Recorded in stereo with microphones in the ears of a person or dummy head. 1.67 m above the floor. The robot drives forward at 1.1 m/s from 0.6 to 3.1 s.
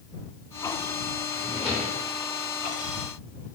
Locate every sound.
1.3 s a drawer: centre (ahead or behind), 0.9 m